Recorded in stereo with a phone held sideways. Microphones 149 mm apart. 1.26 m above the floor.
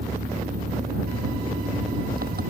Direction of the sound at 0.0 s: 80° right.